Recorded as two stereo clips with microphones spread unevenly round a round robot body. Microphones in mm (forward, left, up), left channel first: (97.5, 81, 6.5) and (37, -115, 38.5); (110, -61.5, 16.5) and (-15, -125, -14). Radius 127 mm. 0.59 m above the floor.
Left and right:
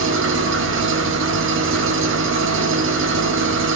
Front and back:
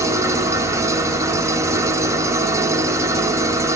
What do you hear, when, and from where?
0.0 s an engine running: 100° right, 1.1 m